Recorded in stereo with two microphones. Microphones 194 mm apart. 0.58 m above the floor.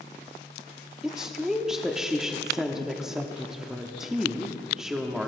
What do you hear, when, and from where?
1.0 s a woman speaking: centre (ahead or behind), 1.0 m